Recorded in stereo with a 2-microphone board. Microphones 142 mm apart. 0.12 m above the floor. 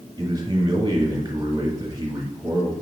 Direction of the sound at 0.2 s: 30° right (ahead or behind).